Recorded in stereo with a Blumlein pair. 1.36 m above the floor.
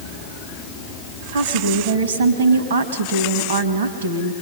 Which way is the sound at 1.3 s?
60° right.